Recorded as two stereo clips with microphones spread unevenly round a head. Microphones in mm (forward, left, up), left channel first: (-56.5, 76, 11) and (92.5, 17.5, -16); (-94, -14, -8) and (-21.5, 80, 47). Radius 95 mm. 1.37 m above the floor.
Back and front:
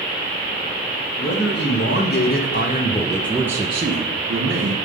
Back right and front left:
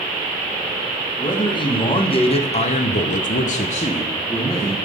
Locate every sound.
1.2 s a man speaking: straight behind, 1.8 m; by 4.8 s 50° right, 1.2 m